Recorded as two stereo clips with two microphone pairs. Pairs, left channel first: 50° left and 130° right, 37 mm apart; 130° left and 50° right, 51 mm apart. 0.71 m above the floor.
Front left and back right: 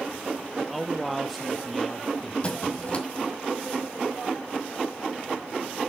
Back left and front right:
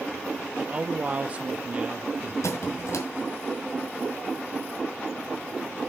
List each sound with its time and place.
0.6 s a man speaking: 40° right, 0.6 m
2.4 s a squeak: 115° left, 1.7 m